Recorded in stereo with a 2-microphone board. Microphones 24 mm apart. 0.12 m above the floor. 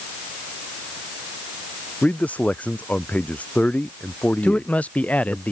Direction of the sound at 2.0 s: 70° left (ahead or behind).